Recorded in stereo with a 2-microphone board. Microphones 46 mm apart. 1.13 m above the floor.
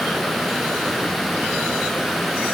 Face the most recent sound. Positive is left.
No sound to turn to.